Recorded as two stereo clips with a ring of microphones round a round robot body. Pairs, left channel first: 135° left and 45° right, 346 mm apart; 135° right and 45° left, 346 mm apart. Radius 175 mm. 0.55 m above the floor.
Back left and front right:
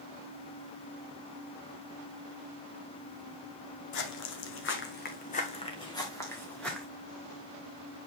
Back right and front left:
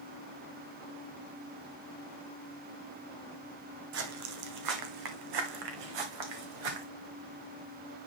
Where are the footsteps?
95° left, 1.4 m; by 6.9 s 45° left, 2 m.